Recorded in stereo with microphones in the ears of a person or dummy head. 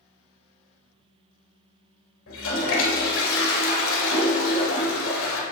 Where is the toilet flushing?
85° left, 1.9 m.